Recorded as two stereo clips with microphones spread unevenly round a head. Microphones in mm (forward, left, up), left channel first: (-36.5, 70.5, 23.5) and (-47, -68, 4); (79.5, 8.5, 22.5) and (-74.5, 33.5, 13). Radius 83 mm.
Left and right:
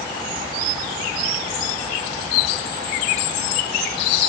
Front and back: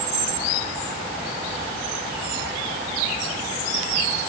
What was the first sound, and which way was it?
Only background noise.